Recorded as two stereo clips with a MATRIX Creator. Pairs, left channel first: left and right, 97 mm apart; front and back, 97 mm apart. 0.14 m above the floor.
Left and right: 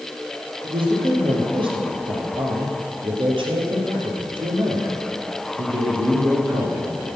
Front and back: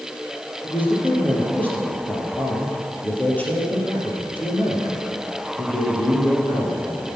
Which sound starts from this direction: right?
A man speaking, at 0.6 s.